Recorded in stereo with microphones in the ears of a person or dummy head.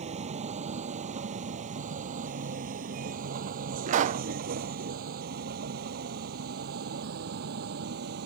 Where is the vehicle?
40° right (ahead or behind); by 8.3 s 65° right (ahead or behind).